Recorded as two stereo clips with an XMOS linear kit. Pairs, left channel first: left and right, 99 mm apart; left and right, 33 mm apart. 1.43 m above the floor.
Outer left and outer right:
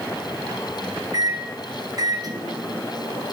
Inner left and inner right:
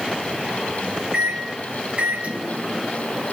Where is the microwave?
40° right (ahead or behind), 1.0 m.